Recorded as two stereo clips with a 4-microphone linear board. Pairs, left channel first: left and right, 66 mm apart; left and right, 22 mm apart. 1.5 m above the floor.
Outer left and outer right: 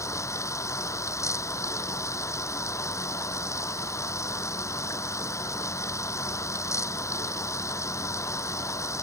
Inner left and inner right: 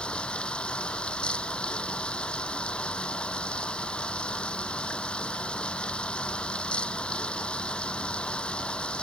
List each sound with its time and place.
0.0 s running water: 50° left (ahead or behind)